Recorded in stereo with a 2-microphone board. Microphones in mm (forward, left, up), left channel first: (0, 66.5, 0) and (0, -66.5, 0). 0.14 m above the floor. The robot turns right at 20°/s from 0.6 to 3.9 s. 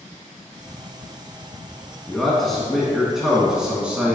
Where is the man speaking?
5° left (ahead or behind), 1.4 m; by 4.2 s 10° right (ahead or behind), 1.4 m.